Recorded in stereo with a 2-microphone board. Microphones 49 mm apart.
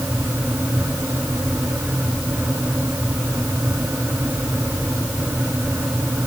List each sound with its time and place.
Only background noise.